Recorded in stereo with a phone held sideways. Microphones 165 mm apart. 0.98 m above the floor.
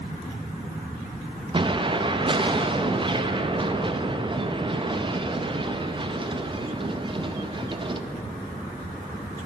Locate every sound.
1.5 s an explosion: 30° right (ahead or behind), 0.5 m